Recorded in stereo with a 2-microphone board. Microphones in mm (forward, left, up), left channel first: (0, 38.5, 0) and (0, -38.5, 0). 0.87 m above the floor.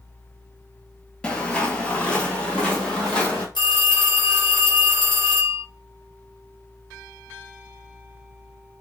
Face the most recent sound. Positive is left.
turn(degrees=75)  # may be behind; listen again after turning